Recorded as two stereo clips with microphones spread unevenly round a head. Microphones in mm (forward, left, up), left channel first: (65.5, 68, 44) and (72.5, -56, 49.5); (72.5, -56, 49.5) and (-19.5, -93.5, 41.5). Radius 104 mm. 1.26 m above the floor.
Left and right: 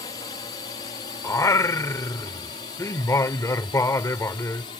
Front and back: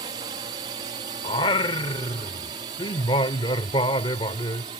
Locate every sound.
0.0 s a drone: 155° left; by 4.8 s 150° left
1.2 s singing: 35° left